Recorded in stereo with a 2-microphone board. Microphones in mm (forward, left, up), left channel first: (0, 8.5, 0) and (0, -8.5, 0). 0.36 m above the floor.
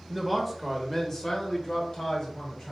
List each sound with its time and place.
0.1 s a man speaking: centre (ahead or behind), 1.1 m; by 2.7 s 55° left (ahead or behind), 2 m